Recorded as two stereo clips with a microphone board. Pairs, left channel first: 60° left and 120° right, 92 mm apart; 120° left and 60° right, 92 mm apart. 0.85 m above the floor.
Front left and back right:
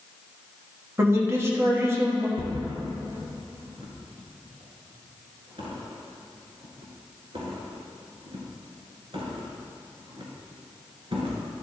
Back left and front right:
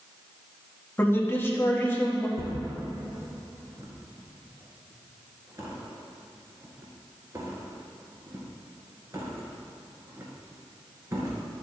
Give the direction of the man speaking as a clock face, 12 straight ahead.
6 o'clock.